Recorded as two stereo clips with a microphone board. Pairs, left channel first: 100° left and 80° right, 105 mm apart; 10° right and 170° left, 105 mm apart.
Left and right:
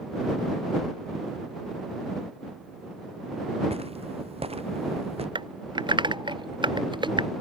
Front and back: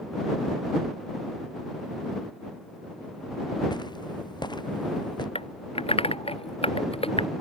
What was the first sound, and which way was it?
Footsteps, 60° right.